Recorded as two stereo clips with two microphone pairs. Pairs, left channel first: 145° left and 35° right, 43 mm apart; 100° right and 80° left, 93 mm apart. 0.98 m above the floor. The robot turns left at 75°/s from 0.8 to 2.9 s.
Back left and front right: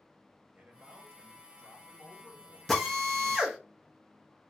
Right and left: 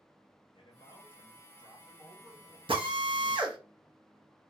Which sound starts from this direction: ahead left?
A drill, at 2.7 s.